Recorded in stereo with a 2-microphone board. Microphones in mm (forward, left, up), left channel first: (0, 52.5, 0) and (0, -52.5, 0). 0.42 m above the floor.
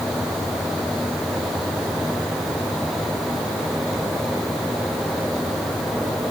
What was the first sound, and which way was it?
Only background noise.